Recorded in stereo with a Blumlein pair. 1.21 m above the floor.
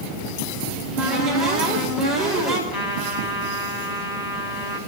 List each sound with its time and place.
0.7 s a cupboard door: 25° right, 5.5 m
2.7 s a trumpet: 35° left, 5.5 m